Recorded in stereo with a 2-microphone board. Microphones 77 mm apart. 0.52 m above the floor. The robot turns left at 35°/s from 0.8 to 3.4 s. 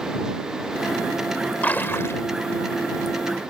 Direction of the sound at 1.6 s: 20° left (ahead or behind).